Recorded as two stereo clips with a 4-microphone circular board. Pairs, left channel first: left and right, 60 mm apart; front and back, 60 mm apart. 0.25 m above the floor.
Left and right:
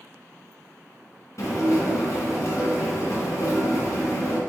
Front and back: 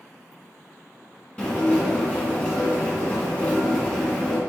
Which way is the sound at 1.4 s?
70° left.